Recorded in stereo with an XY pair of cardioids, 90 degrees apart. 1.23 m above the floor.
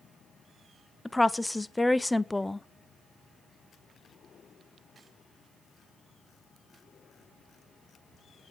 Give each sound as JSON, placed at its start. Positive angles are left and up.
{"t": 1.1, "sound": "a woman speaking", "azimuth_deg": 10, "distance_m": 0.7}